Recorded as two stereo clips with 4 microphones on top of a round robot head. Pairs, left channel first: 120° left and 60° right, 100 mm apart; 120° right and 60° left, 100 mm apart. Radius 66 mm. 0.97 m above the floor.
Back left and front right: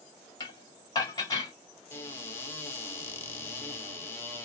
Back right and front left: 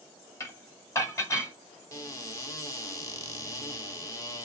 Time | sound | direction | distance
0.4 | dishes clattering | 175° left | 1.8 m
1.9 | a cupboard door | 175° right | 1.7 m